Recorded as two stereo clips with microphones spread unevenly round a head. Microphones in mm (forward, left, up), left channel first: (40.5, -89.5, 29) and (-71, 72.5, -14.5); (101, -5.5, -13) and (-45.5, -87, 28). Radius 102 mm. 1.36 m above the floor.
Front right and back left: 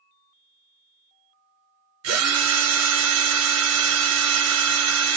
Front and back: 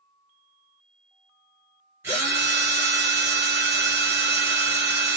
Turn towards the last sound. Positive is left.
turn(degrees=130)